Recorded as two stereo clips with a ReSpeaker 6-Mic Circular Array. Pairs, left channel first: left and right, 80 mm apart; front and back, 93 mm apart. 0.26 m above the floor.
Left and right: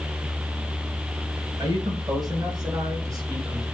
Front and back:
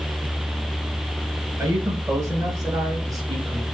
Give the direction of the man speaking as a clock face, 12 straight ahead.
4 o'clock.